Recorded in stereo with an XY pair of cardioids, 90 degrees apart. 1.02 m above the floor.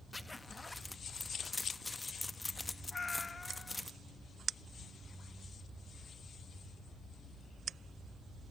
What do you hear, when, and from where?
0.1 s a zipper: 20° left, 1.0 m
2.9 s a cat meowing: 35° left, 0.5 m